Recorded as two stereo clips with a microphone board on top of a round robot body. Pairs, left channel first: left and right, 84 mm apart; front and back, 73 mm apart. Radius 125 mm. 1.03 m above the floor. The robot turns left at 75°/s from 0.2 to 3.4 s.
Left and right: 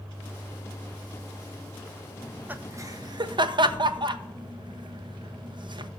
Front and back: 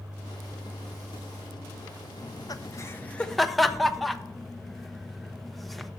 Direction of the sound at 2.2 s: Straight ahead.